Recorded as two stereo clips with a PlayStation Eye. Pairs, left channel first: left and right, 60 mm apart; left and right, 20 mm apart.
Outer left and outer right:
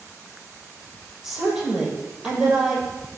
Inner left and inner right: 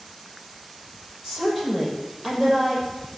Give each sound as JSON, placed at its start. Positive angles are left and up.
{"t": 1.2, "sound": "a woman speaking", "side_deg": -15, "distance_m": 6.5}